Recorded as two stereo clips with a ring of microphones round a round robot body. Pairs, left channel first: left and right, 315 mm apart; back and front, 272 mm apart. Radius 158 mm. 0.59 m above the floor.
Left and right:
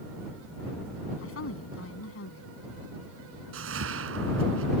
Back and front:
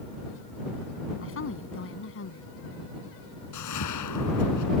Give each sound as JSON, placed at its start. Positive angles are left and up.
{"t": 1.2, "sound": "a woman speaking", "azimuth_deg": 140}
{"t": 3.5, "sound": "a whoosh", "azimuth_deg": -140}